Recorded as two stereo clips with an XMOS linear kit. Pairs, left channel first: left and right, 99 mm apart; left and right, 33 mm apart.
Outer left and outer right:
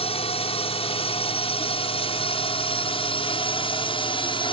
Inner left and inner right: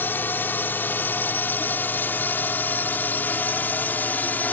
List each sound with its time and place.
0.0 s a drone: 80° left; by 4.5 s 60° left (ahead or behind)